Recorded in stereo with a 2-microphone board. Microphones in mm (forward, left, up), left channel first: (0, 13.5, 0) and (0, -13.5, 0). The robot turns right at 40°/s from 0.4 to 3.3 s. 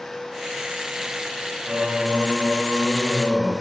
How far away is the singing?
About 5.5 m.